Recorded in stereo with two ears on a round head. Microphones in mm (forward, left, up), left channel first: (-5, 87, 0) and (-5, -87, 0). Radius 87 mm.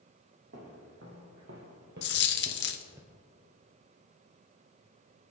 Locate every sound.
0.5 s footsteps: 60° right (ahead or behind), 3.5 m; by 3.0 s 10° right (ahead or behind), 1.3 m
2.0 s a dropped coin: 55° left (ahead or behind), 1.0 m